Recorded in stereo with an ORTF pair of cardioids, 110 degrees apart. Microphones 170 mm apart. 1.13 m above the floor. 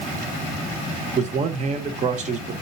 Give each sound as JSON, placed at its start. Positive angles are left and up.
{"t": 1.2, "sound": "a man speaking", "azimuth_deg": -45, "distance_m": 0.7}